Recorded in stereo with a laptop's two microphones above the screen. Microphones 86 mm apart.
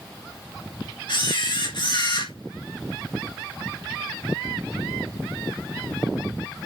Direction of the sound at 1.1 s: 60° left (ahead or behind).